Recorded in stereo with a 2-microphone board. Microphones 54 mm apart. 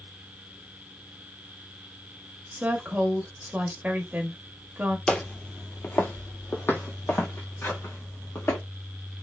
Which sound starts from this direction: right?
A woman speaking, at 2.5 s.